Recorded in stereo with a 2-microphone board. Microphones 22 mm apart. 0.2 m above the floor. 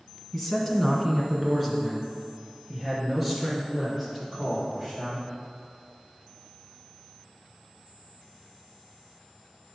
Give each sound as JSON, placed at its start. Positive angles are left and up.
{"t": 0.3, "sound": "a man speaking", "side_deg": 5, "distance_m": 1.6}